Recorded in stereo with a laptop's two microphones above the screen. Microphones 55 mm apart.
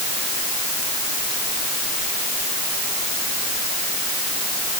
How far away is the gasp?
No gasp in this recording.